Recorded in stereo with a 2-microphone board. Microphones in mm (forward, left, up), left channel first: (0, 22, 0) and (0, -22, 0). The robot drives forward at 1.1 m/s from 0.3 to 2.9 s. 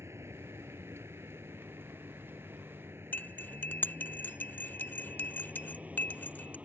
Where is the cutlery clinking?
45° left (ahead or behind).